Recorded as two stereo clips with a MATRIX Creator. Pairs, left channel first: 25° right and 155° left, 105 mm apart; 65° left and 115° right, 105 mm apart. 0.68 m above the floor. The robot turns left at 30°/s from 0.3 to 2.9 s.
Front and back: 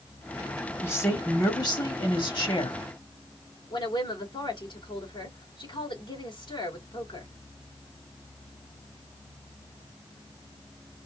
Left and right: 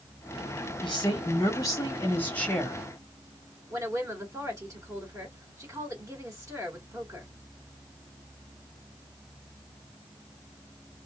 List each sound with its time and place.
0.8 s a woman speaking: 45° left, 1.9 m; by 2.8 s 15° right, 1.9 m
3.7 s a woman speaking: 55° right, 2.5 m